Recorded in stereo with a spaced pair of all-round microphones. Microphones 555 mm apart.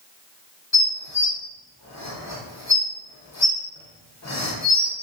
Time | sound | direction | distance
0.7 | dishes clattering | 30° left (ahead or behind) | 0.6 m